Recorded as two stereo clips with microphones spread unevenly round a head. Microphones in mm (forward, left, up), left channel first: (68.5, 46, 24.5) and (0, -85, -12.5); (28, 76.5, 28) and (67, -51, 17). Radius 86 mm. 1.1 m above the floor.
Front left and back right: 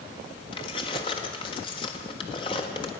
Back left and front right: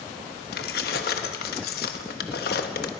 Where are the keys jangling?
125° left, 1.2 m.